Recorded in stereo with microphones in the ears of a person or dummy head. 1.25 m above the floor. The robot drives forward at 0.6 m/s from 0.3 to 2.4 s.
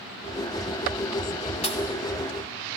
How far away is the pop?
About 1.4 m.